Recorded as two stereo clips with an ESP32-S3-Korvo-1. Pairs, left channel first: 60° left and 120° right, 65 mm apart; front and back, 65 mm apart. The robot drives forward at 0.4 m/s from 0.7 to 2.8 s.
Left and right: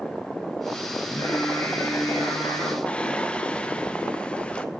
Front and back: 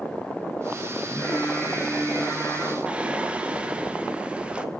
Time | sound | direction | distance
1.0 | singing | 55° left | 6 m
2.9 | singing | 120° left | 0.9 m